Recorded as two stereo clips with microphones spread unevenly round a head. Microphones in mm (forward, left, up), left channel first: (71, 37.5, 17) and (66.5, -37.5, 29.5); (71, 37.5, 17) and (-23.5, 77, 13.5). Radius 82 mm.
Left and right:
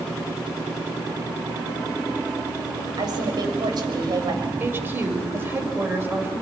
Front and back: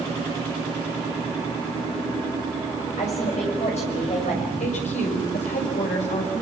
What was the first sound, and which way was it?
A woman speaking, 70° right.